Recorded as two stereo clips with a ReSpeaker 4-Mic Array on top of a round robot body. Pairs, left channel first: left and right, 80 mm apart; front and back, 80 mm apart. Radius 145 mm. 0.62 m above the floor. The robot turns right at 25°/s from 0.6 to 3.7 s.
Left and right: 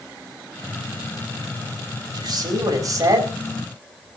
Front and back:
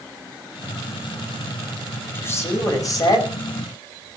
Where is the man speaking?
65° right, 5.5 m; by 3.3 s 30° right, 5.5 m.